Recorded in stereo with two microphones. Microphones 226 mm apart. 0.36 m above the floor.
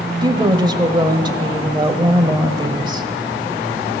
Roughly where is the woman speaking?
Centre.